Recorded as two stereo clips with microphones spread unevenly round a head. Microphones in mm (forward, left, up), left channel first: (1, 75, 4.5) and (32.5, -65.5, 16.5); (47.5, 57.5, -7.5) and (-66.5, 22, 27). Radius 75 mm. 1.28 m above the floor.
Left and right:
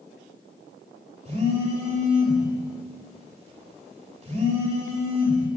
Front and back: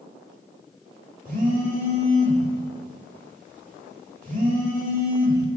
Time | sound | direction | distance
1.2 | a phone buzzing | 130° right | 4 m